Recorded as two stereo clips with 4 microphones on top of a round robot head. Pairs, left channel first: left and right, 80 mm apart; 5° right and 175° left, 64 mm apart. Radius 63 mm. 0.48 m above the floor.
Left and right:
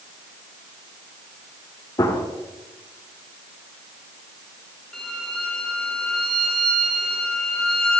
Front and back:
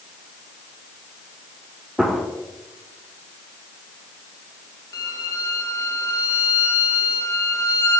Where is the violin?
10° left, 2 m.